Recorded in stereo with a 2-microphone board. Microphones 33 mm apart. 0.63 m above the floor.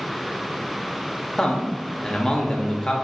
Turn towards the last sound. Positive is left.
turn(degrees=20)  # may be behind; listen again after turning